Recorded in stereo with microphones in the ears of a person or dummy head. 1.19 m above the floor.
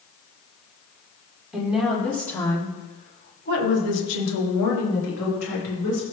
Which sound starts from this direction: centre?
A woman speaking, at 1.5 s.